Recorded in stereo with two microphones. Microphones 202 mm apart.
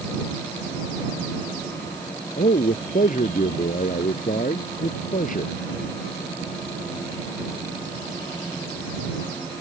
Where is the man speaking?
45° left (ahead or behind).